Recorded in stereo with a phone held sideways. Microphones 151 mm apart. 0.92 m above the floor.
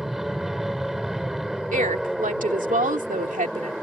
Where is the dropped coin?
I don't hear a dropped coin.